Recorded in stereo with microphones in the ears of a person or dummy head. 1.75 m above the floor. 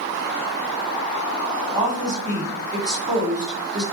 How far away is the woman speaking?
About 1.3 m.